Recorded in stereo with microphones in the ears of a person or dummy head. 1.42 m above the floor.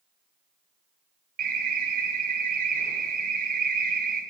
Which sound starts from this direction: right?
An alarm, at 1.4 s.